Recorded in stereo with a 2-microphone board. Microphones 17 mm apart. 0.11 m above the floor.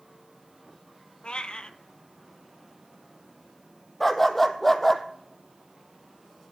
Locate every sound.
1.2 s a cat meowing: 70° left (ahead or behind), 0.6 m
4.0 s a dog barking: 10° left (ahead or behind), 1.0 m